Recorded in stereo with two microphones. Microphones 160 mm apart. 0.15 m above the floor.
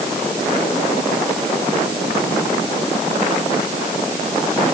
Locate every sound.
Only background noise.